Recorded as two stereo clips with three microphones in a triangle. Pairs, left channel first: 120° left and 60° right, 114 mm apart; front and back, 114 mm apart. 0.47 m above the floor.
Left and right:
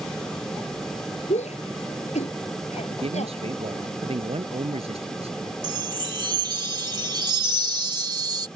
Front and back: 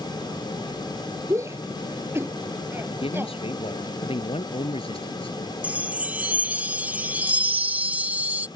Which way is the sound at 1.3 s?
115° left.